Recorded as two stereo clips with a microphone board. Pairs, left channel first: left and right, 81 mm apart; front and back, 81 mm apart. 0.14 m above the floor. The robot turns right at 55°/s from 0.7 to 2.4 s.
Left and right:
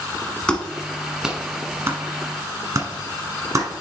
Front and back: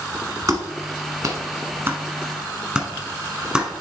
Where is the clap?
160° left, 1.2 m; by 3.7 s 105° right, 1.2 m.